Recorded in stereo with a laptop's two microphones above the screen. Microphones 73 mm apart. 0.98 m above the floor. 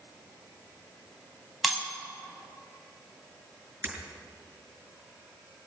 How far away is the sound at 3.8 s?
About 6 m.